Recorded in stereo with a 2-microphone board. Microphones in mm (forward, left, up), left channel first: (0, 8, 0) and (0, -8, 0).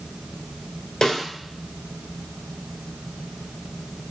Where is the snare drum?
45° left (ahead or behind), 2 m.